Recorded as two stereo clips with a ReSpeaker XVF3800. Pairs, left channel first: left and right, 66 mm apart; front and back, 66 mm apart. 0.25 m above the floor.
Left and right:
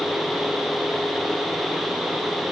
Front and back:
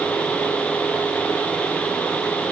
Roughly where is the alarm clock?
I don't hear an alarm clock.